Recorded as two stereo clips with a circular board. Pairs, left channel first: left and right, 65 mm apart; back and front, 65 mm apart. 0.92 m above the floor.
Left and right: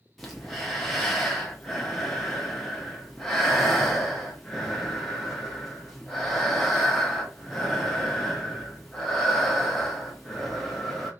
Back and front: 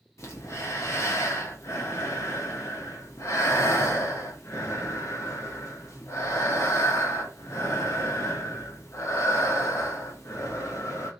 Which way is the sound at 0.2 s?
175° left.